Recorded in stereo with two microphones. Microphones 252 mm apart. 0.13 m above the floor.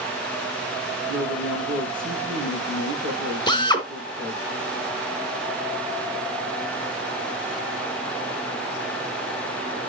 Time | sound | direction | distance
1.1 | a man speaking | 50° right (ahead or behind) | 4 m
3.5 | a drill | 20° left (ahead or behind) | 1.2 m